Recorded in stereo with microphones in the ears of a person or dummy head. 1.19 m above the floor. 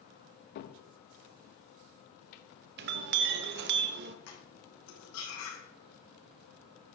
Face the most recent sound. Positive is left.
turn(degrees=65)  # may be behind; listen again after turning